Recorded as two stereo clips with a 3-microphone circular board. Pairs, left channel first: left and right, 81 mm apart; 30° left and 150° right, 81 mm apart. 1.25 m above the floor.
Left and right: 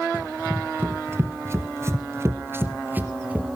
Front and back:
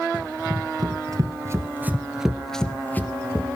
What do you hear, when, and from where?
0.1 s running footsteps: 155° right, 2.5 m; by 3.5 s 20° right, 2 m